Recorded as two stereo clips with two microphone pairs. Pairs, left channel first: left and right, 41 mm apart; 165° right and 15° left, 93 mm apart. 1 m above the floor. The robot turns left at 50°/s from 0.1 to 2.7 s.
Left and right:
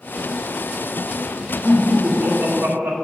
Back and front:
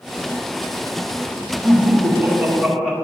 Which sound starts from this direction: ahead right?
Laughter, at 1.6 s.